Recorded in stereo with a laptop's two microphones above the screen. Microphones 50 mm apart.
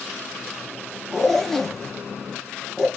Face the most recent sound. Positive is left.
turn(degrees=5)  # may be behind; listen again after turning